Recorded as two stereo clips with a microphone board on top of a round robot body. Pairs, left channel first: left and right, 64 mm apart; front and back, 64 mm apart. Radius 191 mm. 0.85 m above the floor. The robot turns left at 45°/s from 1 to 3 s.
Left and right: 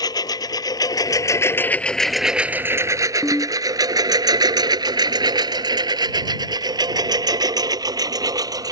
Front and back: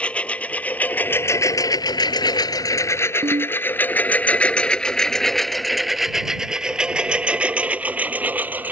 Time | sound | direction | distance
0.0 | a lawn mower | 70° left | ?
3.2 | a ringtone | 170° left | ?